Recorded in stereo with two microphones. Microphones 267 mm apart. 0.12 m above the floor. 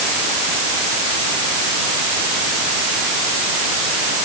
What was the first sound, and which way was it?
Only background noise.